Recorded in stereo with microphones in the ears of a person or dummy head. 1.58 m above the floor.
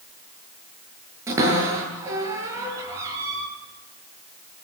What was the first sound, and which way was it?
A cupboard door, 15° right (ahead or behind).